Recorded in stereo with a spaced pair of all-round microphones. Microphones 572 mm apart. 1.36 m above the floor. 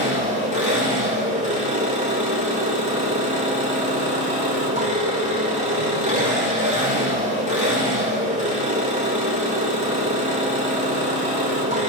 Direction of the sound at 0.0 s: 10° right (ahead or behind).